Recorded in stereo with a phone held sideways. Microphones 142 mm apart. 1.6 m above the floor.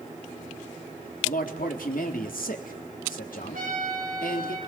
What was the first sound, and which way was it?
A man speaking, 75° left (ahead or behind).